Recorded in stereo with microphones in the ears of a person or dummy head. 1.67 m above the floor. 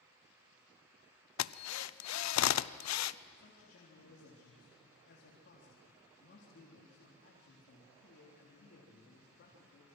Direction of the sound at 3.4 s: 65° left (ahead or behind).